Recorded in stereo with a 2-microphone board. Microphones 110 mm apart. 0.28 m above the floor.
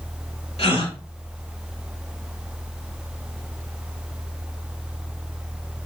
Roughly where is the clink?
No clink in this recording.